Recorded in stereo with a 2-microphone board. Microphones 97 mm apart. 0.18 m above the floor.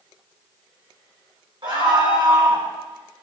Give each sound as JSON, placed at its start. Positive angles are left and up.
{"t": 1.6, "sound": "a scream", "side_deg": -55, "distance_m": 8.5}